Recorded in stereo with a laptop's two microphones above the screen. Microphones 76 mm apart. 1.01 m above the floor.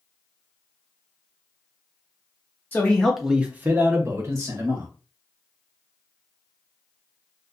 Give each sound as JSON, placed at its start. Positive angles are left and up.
{"t": 2.7, "sound": "a man speaking", "side_deg": 25, "distance_m": 0.5}